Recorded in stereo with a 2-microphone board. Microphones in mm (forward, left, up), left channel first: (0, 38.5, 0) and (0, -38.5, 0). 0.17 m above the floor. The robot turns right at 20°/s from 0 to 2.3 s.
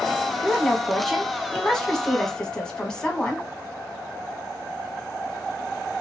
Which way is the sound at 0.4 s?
5° right (ahead or behind).